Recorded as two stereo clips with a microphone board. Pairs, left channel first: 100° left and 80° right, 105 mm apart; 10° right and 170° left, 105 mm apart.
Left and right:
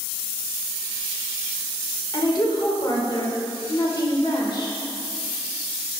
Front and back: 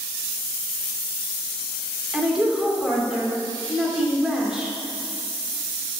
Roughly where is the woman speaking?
Left.